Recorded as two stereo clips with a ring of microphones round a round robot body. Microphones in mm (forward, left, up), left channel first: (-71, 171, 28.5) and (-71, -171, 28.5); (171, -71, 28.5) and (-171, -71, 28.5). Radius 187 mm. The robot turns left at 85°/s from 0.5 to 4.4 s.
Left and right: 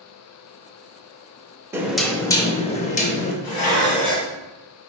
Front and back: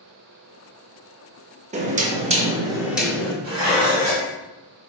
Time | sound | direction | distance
1.7 | knocking | 160° right | 0.5 m
3.4 | dishes clattering | 115° left | 1.7 m